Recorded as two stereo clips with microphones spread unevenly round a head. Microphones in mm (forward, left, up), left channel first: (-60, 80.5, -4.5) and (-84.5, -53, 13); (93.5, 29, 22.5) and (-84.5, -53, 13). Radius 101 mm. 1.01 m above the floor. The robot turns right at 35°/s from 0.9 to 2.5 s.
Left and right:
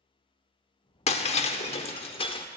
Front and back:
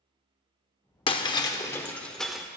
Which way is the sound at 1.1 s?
65° left.